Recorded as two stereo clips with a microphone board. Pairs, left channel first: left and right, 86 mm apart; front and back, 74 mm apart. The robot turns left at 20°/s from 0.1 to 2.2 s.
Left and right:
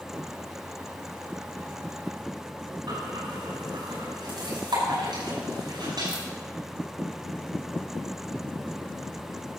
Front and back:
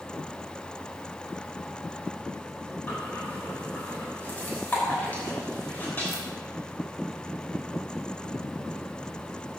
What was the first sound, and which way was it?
Breathing, 70° right.